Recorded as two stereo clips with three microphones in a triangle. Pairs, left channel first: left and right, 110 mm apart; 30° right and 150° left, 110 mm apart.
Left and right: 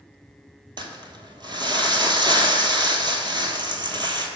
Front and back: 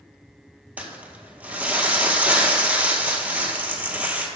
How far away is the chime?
I don't hear a chime.